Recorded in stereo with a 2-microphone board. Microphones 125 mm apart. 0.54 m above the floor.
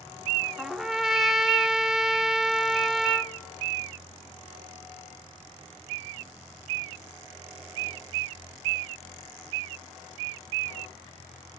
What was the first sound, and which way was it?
A trumpet, centre (ahead or behind).